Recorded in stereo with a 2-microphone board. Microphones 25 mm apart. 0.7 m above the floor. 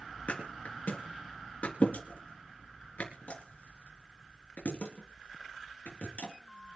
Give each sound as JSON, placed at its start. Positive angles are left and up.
{"t": 0.3, "sound": "a thud", "side_deg": 80, "distance_m": 4.0}